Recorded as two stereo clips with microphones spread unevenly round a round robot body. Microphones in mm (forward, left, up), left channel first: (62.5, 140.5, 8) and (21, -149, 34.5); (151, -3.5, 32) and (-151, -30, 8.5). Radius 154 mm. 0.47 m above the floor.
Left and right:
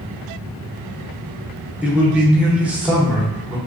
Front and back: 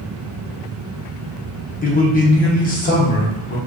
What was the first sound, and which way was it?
A man speaking, 5° right.